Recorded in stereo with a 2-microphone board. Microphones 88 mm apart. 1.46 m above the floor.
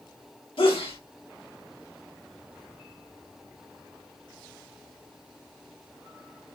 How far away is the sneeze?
About 2.5 m.